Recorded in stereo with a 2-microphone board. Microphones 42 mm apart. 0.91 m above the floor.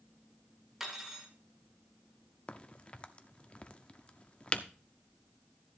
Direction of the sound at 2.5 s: 30° left (ahead or behind).